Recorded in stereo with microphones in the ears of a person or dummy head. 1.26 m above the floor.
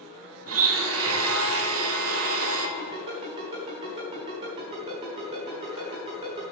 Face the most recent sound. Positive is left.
turn(degrees=-30)  # may be behind; listen again after turning